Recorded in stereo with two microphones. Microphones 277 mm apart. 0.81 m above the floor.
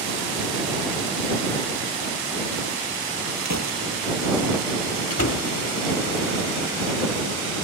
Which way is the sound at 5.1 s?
60° left (ahead or behind).